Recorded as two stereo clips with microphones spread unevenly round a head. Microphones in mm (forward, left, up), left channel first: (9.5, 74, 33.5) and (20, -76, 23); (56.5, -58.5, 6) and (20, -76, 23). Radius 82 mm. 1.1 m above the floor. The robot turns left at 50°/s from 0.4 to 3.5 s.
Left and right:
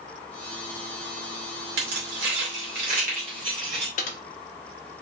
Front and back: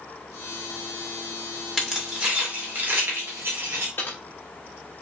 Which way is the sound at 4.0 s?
95° left.